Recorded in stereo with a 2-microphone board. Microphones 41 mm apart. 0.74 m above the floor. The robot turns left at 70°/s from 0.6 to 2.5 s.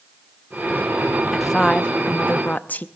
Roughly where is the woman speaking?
Behind.